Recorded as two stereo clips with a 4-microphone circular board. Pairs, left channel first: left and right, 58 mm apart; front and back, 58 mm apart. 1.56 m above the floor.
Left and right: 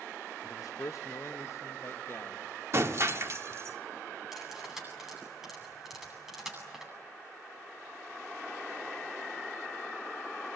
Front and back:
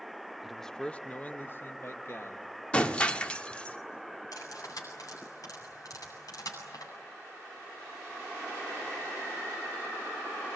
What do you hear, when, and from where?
0.4 s a man speaking: 95° left, 0.8 m; by 2.6 s 40° left, 2.5 m
2.7 s breaking glass: 65° right, 1.6 m
4.3 s cutlery clinking: 5° right, 9 m